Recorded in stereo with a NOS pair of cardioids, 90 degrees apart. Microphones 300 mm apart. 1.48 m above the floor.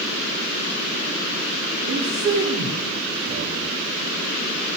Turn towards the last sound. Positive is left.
turn(degrees=-50)